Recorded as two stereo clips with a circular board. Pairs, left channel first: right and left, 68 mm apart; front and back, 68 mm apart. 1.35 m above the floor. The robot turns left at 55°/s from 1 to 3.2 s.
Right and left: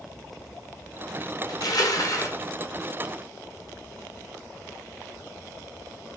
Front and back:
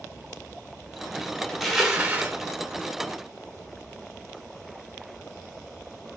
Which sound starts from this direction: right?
Crushing, at 1.5 s.